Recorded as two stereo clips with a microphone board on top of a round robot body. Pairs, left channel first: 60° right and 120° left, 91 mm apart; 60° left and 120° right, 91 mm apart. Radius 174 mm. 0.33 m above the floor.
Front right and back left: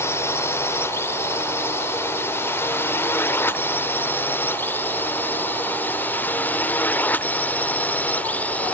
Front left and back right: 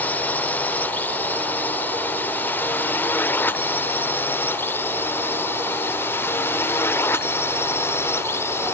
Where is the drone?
5° right; by 8.7 s 5° left.